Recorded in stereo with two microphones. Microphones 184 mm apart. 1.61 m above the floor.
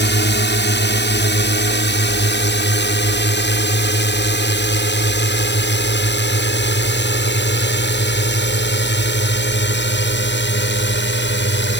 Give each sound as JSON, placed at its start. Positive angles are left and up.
{"t": 0.0, "sound": "a drone", "side_deg": 65}